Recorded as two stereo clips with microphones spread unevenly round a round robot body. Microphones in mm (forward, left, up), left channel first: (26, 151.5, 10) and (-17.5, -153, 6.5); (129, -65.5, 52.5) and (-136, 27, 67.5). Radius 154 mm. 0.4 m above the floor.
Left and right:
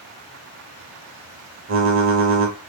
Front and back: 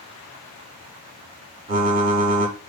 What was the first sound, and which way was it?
Typing on a keyboard, 140° right.